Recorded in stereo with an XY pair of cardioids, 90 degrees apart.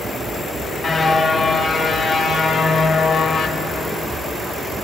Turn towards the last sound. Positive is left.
turn(degrees=70)